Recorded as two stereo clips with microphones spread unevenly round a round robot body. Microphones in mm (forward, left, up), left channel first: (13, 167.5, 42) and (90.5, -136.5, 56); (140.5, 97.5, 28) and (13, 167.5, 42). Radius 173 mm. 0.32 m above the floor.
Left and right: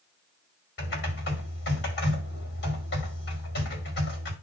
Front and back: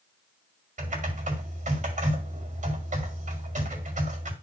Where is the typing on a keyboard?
145° left, 2.0 m.